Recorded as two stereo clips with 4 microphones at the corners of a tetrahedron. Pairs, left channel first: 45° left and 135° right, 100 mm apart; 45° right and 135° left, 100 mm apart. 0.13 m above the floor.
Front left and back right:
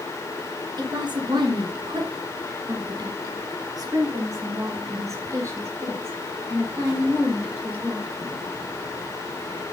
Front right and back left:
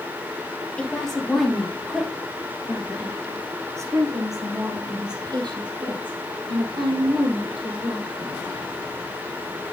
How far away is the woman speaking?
About 2.5 m.